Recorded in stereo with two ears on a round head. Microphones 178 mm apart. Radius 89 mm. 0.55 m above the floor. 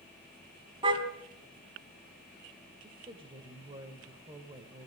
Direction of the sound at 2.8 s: 25° right (ahead or behind).